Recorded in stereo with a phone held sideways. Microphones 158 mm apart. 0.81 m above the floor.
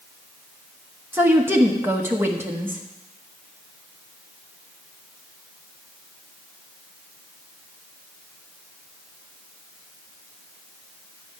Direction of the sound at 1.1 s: 15° right (ahead or behind).